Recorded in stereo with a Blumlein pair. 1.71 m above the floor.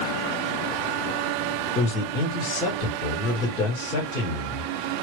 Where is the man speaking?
30° left, 2 m.